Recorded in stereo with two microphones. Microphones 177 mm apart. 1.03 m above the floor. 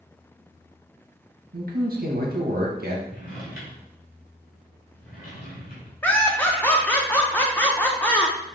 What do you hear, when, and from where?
1.5 s a man speaking: 60° right (ahead or behind), 1.3 m
3.1 s a drawer: 55° left (ahead or behind), 2 m
6.0 s laughter: 10° left (ahead or behind), 0.6 m